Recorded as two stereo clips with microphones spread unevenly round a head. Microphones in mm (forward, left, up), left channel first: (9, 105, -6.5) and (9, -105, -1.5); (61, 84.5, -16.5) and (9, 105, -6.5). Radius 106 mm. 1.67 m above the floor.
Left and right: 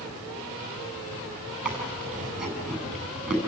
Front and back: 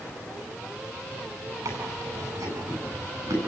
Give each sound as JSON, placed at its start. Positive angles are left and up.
{"t": 1.6, "sound": "chewing", "azimuth_deg": -175, "distance_m": 8.0}